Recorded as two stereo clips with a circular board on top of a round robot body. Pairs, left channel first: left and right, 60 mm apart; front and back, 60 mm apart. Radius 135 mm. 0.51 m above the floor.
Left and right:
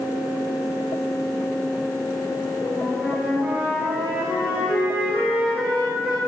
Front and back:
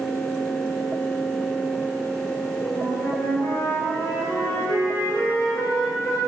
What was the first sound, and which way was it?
A flute, 30° right.